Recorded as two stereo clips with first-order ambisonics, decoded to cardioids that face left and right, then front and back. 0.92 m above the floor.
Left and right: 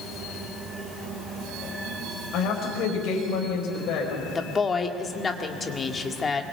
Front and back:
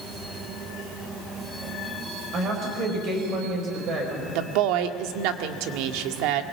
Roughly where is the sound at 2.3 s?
Behind left.